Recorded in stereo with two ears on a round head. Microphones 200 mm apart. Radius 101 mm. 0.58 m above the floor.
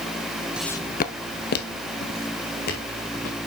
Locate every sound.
0.6 s footsteps: 5° right (ahead or behind), 0.6 m; by 3.4 s 45° left (ahead or behind), 4 m